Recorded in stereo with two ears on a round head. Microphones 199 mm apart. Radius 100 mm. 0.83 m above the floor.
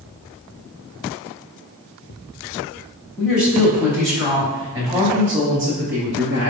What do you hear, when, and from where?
3.2 s a woman speaking: 15° left (ahead or behind), 1.9 m; by 6.5 s 55° right (ahead or behind), 1.1 m